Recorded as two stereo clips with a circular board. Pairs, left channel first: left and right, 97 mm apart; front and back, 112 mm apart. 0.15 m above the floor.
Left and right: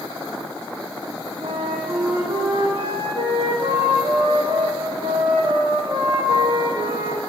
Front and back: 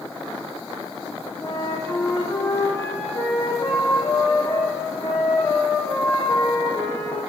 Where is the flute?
65° right, 4.5 m.